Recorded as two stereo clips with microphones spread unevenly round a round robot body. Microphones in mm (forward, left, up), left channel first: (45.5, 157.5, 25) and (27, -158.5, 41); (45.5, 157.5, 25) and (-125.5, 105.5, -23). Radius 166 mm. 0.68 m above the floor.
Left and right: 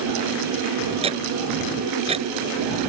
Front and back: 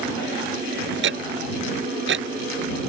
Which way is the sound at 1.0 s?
165° right.